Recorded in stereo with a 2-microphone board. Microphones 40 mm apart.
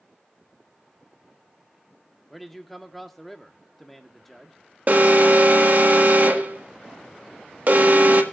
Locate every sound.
2.3 s a man speaking: 5° left (ahead or behind), 1.5 m
4.9 s an alarm: 50° right (ahead or behind), 1.8 m